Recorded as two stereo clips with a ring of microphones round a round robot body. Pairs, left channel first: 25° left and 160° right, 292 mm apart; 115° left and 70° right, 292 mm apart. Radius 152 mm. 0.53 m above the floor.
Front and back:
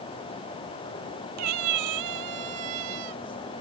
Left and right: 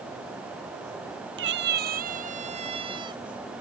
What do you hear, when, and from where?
1.4 s a cat meowing: 120° right; by 3.2 s 145° right